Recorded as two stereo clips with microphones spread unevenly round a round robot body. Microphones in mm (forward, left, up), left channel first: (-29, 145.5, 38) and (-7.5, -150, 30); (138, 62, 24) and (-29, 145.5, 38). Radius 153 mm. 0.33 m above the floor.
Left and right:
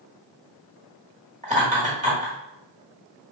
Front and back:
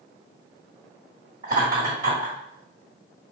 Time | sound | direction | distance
1.4 | laughter | 140° right | 1.4 m